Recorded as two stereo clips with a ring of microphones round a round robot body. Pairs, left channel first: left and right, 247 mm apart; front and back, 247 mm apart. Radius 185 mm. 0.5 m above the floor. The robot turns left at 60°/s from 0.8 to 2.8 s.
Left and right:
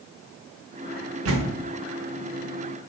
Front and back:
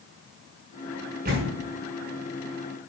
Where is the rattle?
No rattle in this recording.